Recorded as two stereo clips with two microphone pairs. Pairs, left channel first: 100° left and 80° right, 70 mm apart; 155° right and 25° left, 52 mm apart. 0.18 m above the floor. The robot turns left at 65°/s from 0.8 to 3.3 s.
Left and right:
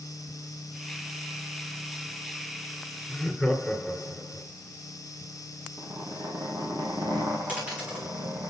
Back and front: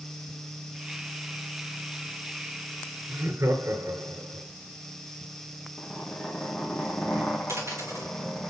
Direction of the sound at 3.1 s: 30° left.